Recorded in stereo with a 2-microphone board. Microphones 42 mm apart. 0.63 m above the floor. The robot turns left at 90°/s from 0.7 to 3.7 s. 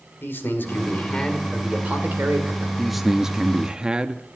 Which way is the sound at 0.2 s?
70° left.